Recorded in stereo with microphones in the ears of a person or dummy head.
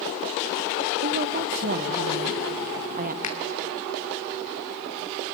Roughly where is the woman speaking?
Right.